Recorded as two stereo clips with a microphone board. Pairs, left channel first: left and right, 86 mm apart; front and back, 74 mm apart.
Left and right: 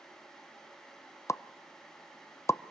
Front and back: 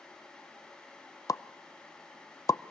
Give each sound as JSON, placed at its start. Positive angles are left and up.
{"t": 1.3, "sound": "a pop", "azimuth_deg": 35, "distance_m": 0.6}